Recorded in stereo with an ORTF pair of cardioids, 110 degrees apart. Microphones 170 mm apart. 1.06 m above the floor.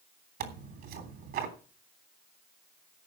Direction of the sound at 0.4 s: 65° right.